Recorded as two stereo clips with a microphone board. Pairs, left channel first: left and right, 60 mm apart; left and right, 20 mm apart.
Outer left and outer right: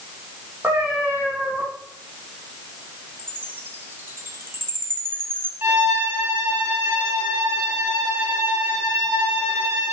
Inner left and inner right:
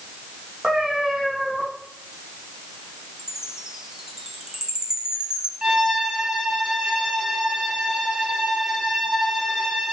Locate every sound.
0.6 s a cat meowing: 20° right (ahead or behind), 4 m
3.2 s a chime: 35° right (ahead or behind), 1.3 m
5.6 s a violin: 35° right (ahead or behind), 4 m